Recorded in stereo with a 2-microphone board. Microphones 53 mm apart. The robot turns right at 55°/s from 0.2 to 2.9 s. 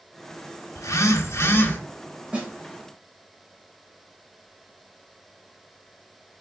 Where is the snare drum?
25° right (ahead or behind), 2 m; by 2.5 s 15° right (ahead or behind), 2 m.